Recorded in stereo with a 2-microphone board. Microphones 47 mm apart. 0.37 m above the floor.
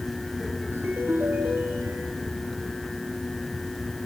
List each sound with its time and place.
0.7 s a ringtone: 50° right (ahead or behind), 3.5 m